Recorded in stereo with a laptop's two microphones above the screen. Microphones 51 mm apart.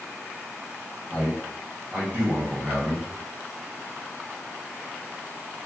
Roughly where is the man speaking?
Right.